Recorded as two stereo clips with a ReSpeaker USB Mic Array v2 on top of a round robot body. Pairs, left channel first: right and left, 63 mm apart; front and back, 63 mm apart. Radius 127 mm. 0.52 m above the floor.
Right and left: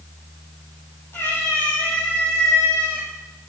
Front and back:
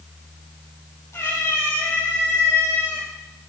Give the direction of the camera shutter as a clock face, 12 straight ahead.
No camera shutter in this recording.